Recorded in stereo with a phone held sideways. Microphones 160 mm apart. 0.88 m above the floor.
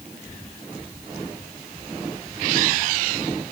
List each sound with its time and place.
Only background noise.